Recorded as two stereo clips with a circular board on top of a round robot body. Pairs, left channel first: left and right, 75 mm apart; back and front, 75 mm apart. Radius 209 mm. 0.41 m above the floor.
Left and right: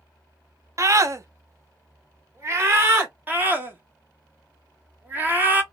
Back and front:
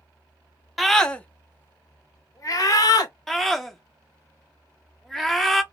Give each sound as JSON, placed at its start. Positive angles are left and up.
{"t": 0.8, "sound": "a scream", "azimuth_deg": -90, "distance_m": 0.9}
{"t": 3.3, "sound": "a scream", "azimuth_deg": -100, "distance_m": 1.3}